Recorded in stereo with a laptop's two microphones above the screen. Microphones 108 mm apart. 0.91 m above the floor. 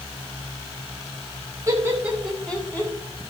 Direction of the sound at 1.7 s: 30° right (ahead or behind).